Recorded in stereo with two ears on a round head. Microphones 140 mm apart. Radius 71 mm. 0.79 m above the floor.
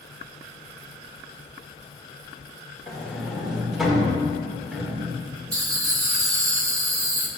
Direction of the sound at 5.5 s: 25° right (ahead or behind).